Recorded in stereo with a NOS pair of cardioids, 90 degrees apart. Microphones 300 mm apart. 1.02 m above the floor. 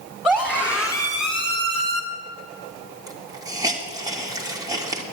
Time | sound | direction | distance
0.2 | a scream | 5° right | 3 m
3.1 | a hiss | 10° right | 2 m